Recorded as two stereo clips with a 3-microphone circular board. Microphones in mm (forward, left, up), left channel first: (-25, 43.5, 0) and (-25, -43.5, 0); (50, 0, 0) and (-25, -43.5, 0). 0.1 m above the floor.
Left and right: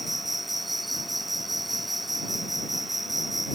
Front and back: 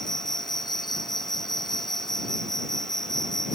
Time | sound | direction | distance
0.0 | an insect | straight ahead | ?